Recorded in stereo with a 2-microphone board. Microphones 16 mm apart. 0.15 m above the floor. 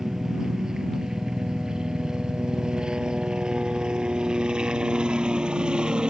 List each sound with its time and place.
0.0 s a helicopter: 35° right (ahead or behind); by 6.1 s 70° right (ahead or behind)